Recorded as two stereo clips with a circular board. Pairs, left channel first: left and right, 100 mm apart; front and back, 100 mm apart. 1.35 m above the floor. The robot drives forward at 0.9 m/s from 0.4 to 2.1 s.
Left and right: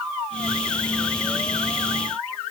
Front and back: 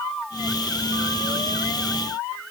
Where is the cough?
I don't hear a cough.